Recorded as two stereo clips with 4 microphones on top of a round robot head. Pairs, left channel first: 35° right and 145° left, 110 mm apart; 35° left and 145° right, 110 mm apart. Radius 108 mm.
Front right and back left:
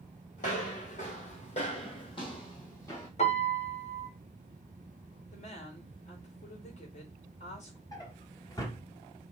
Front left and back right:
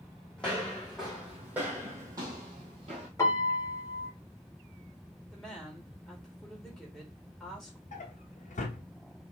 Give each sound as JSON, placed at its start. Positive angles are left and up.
{"t": 0.4, "sound": "footsteps", "azimuth_deg": -45, "distance_m": 2.0}
{"t": 3.2, "sound": "a piano", "azimuth_deg": -30, "distance_m": 2.0}
{"t": 5.3, "sound": "a woman speaking", "azimuth_deg": -50, "distance_m": 3.0}
{"t": 7.9, "sound": "a drawer", "azimuth_deg": 20, "distance_m": 1.5}